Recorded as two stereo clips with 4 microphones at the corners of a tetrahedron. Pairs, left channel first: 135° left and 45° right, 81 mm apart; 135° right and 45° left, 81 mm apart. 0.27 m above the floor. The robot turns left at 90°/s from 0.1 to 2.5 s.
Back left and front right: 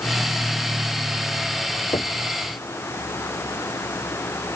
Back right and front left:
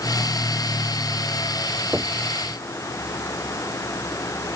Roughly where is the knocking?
Behind left.